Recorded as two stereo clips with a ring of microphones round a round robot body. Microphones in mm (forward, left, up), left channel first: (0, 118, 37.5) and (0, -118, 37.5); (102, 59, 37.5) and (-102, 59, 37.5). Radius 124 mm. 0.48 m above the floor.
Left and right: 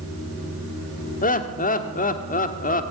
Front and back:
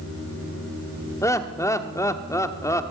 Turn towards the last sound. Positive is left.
turn(degrees=65)